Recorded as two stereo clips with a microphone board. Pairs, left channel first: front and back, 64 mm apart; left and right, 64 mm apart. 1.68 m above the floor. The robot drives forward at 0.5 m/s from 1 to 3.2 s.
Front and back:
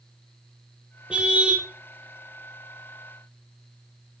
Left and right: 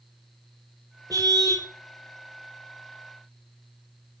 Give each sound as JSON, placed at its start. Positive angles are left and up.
{"t": 1.1, "sound": "a car horn", "azimuth_deg": -105, "distance_m": 4.0}